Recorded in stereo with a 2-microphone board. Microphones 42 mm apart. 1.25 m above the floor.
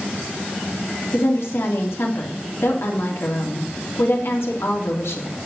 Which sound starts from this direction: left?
A woman speaking, at 1.1 s.